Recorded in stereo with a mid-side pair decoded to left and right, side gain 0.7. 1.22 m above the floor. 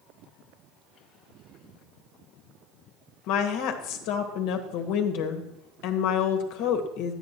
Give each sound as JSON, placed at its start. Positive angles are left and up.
{"t": 3.3, "sound": "a woman speaking", "azimuth_deg": 70, "distance_m": 1.5}